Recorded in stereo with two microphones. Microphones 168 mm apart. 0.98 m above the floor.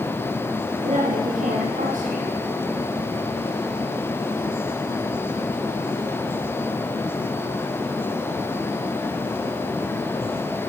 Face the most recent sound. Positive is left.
turn(degrees=-55)  # may be behind; listen again after turning